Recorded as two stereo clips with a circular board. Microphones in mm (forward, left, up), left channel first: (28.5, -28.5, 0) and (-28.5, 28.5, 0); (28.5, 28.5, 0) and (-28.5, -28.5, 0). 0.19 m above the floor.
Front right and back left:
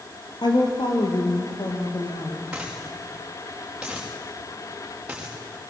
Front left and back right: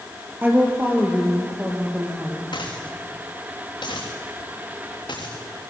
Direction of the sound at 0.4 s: 70° right.